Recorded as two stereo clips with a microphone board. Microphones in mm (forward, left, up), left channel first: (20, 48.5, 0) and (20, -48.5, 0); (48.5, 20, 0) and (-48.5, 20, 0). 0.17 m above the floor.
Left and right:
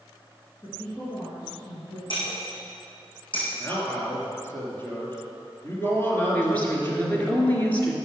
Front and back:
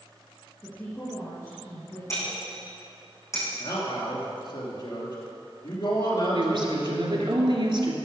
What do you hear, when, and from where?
0.6 s a woman speaking: 55° left, 3.5 m
2.1 s breaking glass: 60° left, 4.5 m
3.6 s a man speaking: 25° left, 2.5 m
6.3 s a woman speaking: 160° left, 2 m